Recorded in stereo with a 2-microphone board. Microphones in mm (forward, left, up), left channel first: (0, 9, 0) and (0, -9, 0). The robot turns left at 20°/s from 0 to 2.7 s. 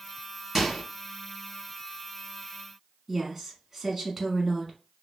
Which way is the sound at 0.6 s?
10° right (ahead or behind).